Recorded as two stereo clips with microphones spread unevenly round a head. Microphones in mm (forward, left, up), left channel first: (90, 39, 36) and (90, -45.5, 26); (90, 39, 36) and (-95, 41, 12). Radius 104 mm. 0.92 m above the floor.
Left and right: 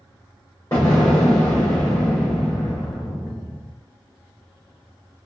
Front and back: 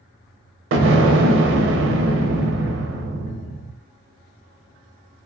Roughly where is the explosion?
Behind.